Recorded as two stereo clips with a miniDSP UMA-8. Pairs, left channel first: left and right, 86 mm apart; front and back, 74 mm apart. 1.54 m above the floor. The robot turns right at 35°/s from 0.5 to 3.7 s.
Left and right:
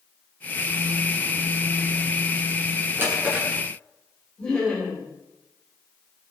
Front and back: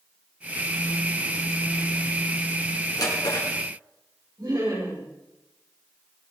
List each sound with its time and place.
3.0 s a drawer: 30° right, 7 m; by 3.5 s 10° right, 7 m
4.4 s laughter: 170° left, 7 m